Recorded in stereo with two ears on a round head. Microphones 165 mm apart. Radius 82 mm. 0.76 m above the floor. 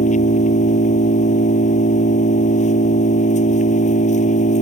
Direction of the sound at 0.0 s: 40° left (ahead or behind).